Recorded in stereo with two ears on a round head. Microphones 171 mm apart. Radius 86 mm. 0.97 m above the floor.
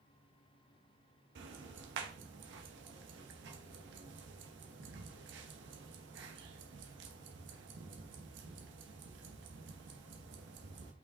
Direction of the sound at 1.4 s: 65° right (ahead or behind).